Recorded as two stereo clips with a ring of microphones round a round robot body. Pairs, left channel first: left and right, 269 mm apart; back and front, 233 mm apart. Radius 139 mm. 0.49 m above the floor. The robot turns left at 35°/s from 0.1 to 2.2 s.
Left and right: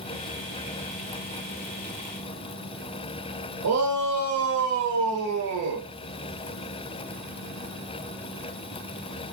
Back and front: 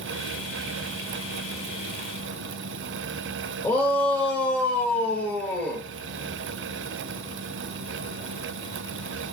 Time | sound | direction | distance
3.6 | a shout | 100° right | 1.7 m